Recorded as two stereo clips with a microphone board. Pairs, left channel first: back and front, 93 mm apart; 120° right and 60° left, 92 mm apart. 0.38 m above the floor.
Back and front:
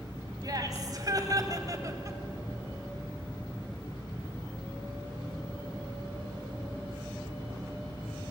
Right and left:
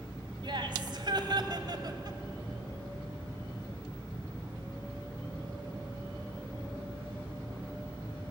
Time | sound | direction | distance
0.4 | laughter | 40° left | 3 m